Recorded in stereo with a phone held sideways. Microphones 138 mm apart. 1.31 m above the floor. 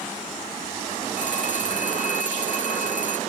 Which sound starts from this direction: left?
A phone ringing, at 1.2 s.